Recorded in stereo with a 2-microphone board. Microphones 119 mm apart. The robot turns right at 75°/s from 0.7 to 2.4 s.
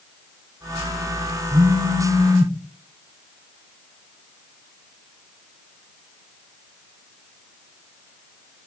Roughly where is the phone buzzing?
Behind right.